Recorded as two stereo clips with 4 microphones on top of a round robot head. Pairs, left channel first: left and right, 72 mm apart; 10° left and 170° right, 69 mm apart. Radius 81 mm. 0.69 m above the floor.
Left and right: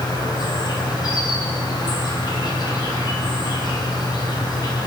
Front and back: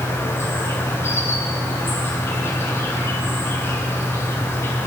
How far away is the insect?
About 4 m.